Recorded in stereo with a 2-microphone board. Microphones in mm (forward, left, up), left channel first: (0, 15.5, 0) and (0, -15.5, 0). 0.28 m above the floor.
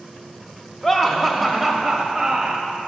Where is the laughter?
15° left (ahead or behind), 0.9 m; by 2.7 s 25° right (ahead or behind), 1.2 m.